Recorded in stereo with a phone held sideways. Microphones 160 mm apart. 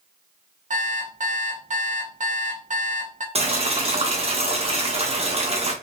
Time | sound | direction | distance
0.7 | an alarm clock | 55° right (ahead or behind) | 0.7 m
3.4 | boiling | 40° right (ahead or behind) | 0.7 m